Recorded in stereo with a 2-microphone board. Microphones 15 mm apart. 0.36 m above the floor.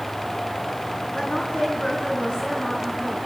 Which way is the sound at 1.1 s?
70° left (ahead or behind).